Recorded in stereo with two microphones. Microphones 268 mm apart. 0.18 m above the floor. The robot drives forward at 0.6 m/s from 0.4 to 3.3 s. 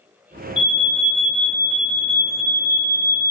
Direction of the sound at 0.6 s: 20° left (ahead or behind).